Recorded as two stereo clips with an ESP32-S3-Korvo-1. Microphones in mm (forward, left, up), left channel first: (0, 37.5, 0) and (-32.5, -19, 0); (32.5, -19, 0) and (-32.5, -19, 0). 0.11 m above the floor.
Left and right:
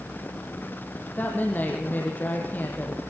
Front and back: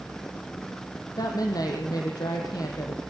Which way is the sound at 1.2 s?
Straight ahead.